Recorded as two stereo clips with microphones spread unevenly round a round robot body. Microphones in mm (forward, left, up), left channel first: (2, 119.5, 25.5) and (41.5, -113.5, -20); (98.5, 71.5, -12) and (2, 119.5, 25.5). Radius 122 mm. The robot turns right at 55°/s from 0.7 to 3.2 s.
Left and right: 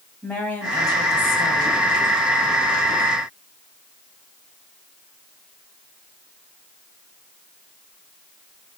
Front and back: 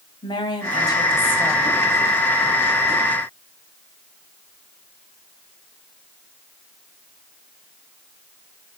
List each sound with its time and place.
0.2 s a woman speaking: 10° left, 2.5 m; by 1.8 s 75° left, 2.5 m